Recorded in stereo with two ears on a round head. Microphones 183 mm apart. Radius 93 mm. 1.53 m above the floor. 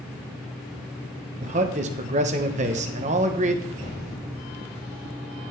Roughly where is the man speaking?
Right.